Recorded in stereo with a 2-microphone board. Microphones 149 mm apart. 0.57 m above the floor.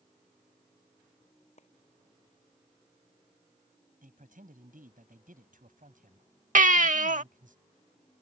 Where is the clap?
55° left (ahead or behind).